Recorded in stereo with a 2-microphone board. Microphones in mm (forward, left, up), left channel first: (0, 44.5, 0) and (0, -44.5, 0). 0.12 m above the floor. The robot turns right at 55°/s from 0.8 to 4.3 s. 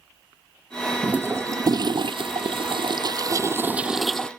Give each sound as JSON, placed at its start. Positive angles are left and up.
{"t": 1.0, "sound": "a toilet flushing", "azimuth_deg": -170}